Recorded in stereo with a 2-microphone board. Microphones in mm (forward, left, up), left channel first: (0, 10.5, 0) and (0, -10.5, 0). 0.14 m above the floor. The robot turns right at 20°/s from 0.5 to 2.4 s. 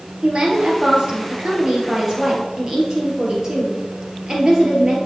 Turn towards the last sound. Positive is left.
turn(degrees=-30)